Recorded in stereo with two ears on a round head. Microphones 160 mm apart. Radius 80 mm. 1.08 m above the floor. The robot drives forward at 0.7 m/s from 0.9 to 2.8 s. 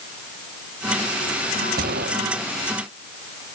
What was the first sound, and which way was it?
A gunshot, 55° right (ahead or behind).